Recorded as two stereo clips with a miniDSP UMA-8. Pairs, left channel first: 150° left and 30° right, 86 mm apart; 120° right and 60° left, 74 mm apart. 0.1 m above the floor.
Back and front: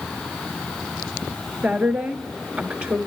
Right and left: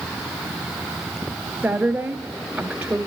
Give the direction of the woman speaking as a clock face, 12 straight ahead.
12 o'clock.